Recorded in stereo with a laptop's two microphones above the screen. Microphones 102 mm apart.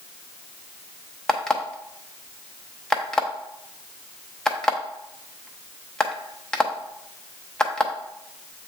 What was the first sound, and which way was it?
An alarm clock, 10° left (ahead or behind).